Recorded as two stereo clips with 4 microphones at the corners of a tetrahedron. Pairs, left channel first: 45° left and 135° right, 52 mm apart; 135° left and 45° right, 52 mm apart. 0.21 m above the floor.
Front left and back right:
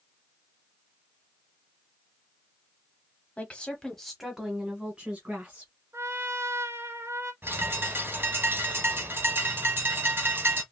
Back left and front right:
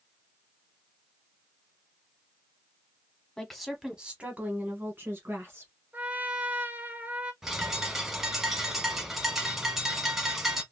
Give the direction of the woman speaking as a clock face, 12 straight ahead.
10 o'clock.